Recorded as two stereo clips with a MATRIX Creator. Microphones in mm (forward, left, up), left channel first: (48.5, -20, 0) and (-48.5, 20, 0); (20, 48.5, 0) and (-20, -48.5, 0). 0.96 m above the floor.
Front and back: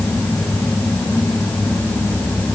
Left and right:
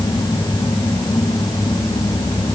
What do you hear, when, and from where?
Only background noise.